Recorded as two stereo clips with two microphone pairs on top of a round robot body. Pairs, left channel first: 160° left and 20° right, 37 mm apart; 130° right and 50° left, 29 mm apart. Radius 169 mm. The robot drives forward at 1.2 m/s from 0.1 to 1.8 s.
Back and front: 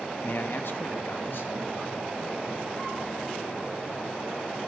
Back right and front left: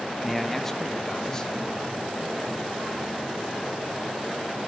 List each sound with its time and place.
0.2 s a man speaking: 145° left, 1.3 m; by 1.7 s 165° left, 3 m